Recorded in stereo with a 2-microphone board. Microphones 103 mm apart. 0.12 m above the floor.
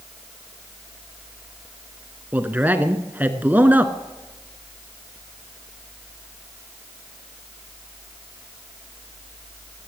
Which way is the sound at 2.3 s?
15° right (ahead or behind).